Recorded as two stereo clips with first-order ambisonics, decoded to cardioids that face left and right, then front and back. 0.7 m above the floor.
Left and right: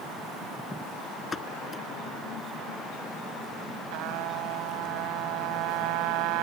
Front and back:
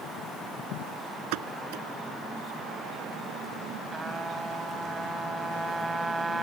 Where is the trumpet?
100° right.